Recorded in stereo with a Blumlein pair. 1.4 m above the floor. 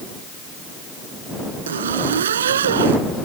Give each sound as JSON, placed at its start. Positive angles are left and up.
{"t": 1.7, "sound": "a zipper", "azimuth_deg": -65}